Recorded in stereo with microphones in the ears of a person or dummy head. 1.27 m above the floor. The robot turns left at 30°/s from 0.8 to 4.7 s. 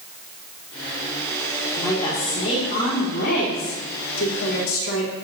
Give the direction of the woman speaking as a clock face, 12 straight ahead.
6 o'clock.